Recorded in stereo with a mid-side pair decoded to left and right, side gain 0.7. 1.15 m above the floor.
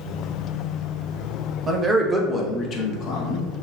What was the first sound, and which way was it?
A man speaking, 20° right.